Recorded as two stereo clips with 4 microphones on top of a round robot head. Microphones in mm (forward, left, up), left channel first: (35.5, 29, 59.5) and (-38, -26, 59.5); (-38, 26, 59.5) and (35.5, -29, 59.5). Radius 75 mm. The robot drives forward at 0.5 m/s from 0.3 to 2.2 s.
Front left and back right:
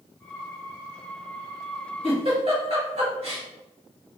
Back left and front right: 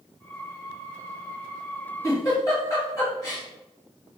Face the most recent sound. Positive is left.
turn(degrees=-160)